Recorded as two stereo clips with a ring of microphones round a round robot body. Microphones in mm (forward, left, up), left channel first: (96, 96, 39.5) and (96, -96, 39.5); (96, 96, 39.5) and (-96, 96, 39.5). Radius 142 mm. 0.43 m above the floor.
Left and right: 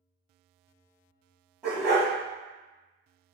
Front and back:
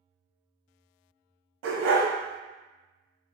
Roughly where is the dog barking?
Behind.